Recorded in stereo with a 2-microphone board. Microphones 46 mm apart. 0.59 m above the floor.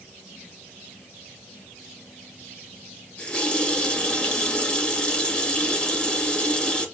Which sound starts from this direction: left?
A running tap, at 3.2 s.